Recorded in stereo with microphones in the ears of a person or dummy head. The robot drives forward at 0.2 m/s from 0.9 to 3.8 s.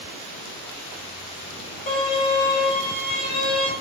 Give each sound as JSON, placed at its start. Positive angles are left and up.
{"t": 1.9, "sound": "a violin", "side_deg": 35, "distance_m": 1.5}